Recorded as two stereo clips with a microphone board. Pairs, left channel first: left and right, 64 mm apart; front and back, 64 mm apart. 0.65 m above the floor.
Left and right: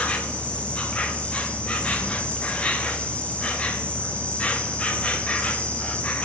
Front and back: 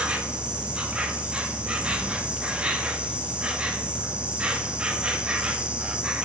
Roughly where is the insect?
Behind left.